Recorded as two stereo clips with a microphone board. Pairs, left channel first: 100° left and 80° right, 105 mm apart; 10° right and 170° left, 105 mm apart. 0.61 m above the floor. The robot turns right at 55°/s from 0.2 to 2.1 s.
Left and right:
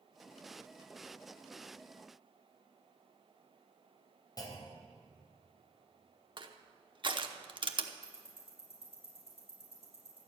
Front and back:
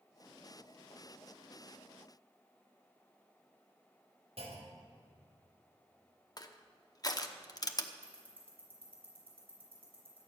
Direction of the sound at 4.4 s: 150° left.